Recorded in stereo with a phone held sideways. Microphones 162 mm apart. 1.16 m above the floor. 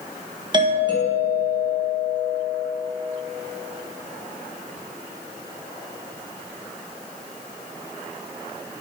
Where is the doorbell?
30° right (ahead or behind), 1.9 m.